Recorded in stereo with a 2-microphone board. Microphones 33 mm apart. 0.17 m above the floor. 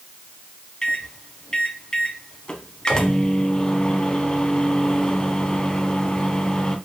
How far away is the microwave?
About 0.9 m.